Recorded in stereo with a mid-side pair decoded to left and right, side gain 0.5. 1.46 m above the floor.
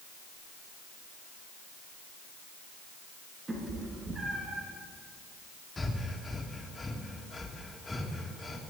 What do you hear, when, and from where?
3.5 s a cat meowing: 30° right, 6 m; by 4.7 s 35° right, 5.5 m
5.8 s breathing: 20° left, 2.5 m